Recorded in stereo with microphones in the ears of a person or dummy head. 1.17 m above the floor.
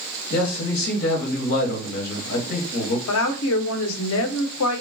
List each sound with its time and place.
0.3 s a man speaking: 45° left (ahead or behind), 1.0 m
3.1 s a woman speaking: 70° left (ahead or behind), 0.6 m